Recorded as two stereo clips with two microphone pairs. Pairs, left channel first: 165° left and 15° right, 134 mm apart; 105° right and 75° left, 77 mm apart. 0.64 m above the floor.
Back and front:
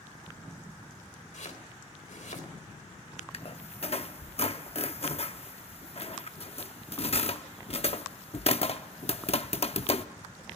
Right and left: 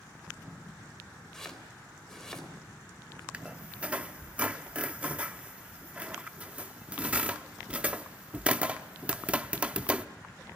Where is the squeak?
140° left, 0.7 m.